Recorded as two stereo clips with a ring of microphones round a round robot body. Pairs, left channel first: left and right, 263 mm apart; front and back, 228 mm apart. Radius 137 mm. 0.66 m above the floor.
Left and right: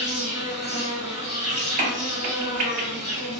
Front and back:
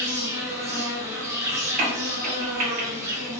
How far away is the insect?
About 1.5 m.